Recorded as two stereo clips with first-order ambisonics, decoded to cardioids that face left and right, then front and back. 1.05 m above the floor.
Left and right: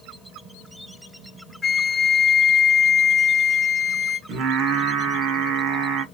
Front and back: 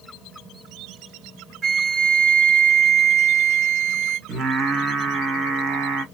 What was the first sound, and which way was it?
A flute, 160° left.